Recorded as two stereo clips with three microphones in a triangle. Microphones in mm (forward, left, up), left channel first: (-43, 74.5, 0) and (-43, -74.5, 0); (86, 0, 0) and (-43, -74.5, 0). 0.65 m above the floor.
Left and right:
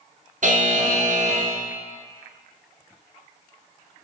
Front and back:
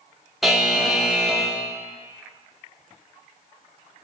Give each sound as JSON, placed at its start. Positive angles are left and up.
{"t": 0.4, "sound": "a buzzer", "azimuth_deg": -60, "distance_m": 0.6}